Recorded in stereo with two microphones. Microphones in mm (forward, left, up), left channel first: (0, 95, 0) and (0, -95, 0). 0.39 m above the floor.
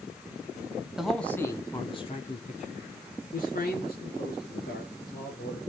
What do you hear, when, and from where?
1.0 s a man speaking: 5° right (ahead or behind), 2 m; by 5.6 s 65° left (ahead or behind), 6.5 m